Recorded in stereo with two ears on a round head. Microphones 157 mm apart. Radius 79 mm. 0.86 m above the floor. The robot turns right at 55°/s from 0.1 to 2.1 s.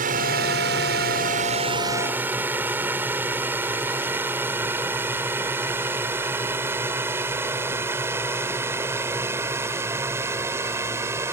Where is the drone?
50° right (ahead or behind); by 11.3 s 15° right (ahead or behind).